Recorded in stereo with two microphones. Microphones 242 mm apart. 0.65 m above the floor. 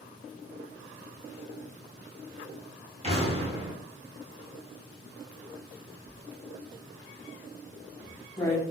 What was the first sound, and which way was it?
An explosion, 25° right (ahead or behind).